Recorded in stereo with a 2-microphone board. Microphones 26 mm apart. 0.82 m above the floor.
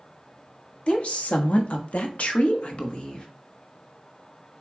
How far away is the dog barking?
I don't hear a dog barking.